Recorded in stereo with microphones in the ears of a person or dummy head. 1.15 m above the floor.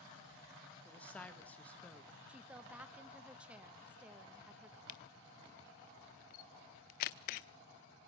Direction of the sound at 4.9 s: 45° left (ahead or behind).